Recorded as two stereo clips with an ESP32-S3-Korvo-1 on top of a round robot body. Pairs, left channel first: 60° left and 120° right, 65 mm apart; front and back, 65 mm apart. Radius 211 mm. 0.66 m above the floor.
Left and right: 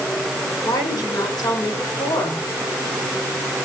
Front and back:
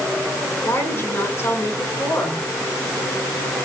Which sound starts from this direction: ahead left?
A woman speaking, at 0.6 s.